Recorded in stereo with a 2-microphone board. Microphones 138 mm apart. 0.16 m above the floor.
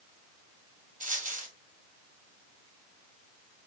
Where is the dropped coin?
80° right, 1.3 m.